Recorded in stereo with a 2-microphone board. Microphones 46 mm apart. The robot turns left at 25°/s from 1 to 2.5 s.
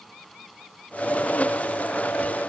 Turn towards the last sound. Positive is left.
No sound to turn to.